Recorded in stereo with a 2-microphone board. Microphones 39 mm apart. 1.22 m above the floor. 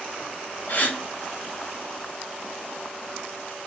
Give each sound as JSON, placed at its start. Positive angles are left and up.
{"t": 0.7, "sound": "a gasp", "side_deg": 45, "distance_m": 1.0}